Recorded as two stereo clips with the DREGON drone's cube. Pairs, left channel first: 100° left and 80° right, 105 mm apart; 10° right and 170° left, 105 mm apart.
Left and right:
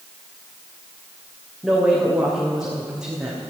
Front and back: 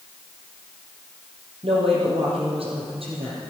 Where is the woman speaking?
165° right, 5 m.